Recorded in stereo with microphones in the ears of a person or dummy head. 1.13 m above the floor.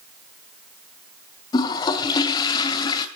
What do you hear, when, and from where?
1.5 s a toilet flushing: 25° left (ahead or behind), 2 m